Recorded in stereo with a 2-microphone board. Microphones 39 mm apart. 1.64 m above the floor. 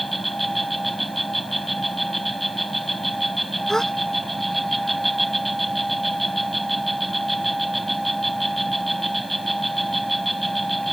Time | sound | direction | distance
0.0 | an insect | 5° left (ahead or behind) | ?
3.7 | a gasp | 15° left (ahead or behind) | ?